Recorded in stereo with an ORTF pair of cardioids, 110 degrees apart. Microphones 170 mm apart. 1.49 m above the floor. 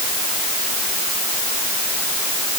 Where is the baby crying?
I don't hear a baby crying.